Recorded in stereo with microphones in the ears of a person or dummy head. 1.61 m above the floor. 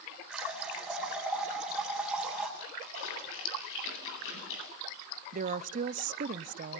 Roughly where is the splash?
Left.